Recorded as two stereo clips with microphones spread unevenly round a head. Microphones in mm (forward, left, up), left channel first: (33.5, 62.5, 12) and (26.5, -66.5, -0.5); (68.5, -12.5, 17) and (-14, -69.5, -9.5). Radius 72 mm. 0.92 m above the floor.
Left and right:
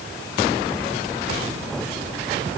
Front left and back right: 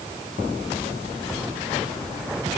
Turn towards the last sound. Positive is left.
No sound to turn to.